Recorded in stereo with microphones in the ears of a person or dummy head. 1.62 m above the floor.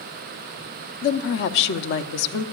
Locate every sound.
1.0 s a woman speaking: 65° left (ahead or behind), 0.7 m